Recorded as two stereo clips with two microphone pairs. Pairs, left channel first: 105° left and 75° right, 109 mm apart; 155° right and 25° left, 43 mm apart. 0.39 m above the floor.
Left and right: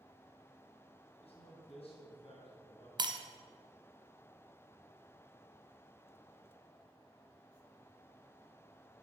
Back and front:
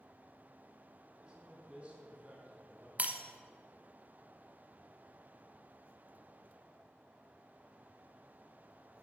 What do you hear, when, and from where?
1.2 s a man speaking: 90° left, 3 m; by 2.9 s 80° left, 5 m
3.0 s breaking glass: 30° right, 1.3 m